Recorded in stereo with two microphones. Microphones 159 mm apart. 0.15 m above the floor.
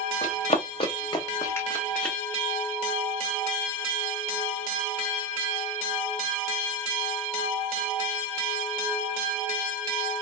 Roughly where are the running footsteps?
Left.